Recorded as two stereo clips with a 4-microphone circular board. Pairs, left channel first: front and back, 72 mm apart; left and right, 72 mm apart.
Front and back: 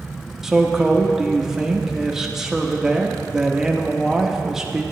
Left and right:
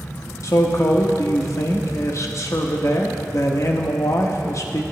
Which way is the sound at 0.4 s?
100° left.